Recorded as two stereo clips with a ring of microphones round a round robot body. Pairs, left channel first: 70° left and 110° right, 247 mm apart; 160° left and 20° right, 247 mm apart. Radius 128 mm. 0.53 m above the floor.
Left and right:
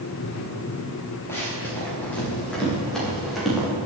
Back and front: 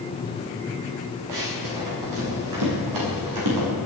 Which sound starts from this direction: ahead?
Running footsteps, at 1.3 s.